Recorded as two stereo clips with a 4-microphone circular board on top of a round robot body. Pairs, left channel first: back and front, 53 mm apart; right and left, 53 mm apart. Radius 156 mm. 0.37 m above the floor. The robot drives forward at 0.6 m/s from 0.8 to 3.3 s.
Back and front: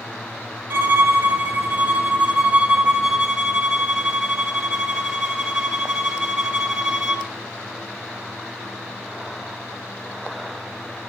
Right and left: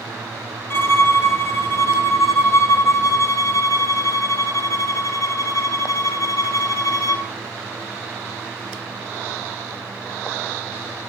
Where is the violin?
55° right, 3.5 m; by 7.3 s 80° right, 2.5 m.